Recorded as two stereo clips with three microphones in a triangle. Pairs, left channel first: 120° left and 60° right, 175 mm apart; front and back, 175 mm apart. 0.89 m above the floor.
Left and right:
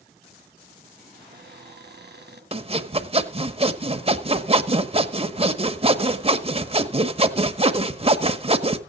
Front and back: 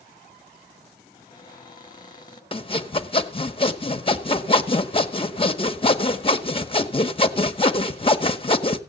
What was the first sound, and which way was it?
A cupboard door, 65° right.